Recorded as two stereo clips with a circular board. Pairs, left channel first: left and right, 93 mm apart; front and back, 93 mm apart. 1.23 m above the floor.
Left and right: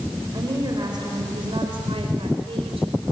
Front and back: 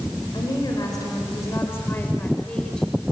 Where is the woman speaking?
40° right, 4.5 m; by 2.9 s 85° right, 4 m.